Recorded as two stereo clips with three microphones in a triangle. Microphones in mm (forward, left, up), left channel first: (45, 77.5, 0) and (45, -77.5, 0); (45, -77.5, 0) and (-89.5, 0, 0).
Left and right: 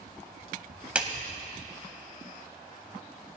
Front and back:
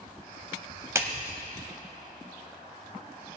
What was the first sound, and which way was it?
A clap, 160° right.